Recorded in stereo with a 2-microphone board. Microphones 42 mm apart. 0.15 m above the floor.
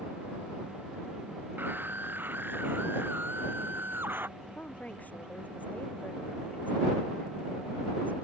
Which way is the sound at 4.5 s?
40° left (ahead or behind).